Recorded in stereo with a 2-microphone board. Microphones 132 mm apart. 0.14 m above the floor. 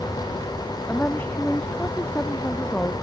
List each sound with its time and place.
0.9 s a woman speaking: 15° left (ahead or behind)